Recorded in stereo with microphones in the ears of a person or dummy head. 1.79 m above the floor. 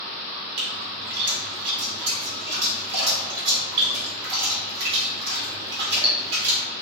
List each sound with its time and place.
0.6 s a splash: 65° right (ahead or behind), 1.4 m